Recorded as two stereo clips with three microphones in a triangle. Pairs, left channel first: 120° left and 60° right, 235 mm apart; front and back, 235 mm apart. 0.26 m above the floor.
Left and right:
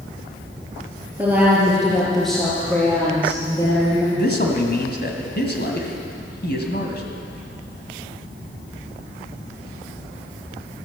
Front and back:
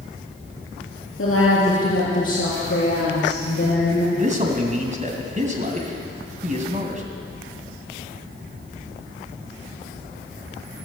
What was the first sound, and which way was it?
A woman speaking, 25° left.